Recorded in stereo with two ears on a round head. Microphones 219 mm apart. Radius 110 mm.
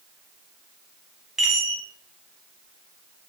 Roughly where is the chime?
Centre.